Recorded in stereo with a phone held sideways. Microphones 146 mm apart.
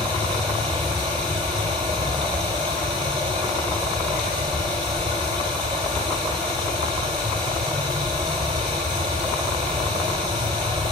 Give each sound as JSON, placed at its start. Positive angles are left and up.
{"t": 0.0, "sound": "running water", "side_deg": -35, "distance_m": 4.5}